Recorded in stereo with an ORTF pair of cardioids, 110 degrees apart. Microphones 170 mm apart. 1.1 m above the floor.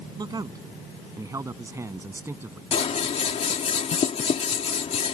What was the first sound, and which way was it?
A man speaking, 25° right.